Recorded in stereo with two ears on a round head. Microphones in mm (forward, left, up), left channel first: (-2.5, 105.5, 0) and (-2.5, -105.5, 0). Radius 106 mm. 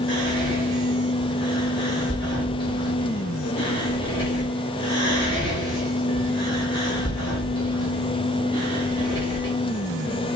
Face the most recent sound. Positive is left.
turn(degrees=20)  # may be behind; listen again after turning